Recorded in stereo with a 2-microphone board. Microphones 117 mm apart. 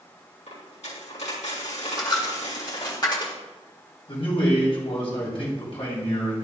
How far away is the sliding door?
No sliding door in this recording.